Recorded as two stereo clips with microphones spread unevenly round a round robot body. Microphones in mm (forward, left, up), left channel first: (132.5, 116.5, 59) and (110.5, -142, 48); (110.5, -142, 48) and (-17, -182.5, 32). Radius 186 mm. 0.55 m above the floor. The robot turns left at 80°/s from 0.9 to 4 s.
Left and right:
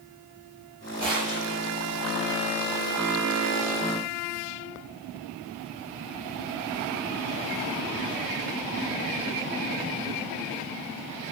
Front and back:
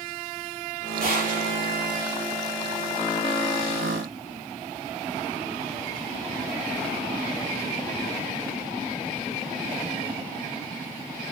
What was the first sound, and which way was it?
A gunshot, straight behind.